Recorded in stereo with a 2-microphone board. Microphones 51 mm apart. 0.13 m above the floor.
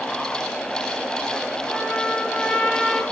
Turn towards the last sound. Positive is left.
turn(degrees=15)  # may be behind; listen again after turning